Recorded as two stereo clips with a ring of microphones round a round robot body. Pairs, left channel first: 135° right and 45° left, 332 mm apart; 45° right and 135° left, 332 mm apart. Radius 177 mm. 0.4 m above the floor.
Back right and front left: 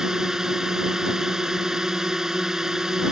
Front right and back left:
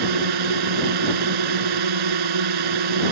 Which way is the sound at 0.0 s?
135° left.